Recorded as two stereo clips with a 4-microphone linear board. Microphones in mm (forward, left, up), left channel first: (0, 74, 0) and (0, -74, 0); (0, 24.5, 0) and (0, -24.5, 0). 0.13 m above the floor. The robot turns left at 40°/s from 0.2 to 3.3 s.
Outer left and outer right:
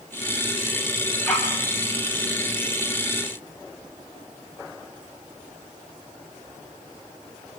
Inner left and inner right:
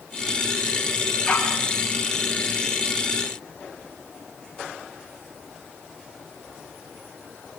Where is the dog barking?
5° left (ahead or behind), 8 m; by 1.6 s 20° left (ahead or behind), 8 m.